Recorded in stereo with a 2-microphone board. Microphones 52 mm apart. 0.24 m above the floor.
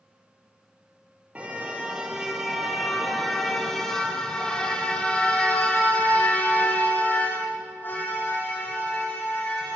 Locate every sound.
1.4 s a car horn: 25° right (ahead or behind), 3.5 m; by 9.8 s 45° left (ahead or behind), 7.5 m